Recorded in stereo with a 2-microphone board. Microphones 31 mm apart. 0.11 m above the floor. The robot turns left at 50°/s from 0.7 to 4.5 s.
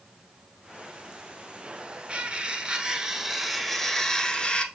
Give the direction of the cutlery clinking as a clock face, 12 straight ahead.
3 o'clock.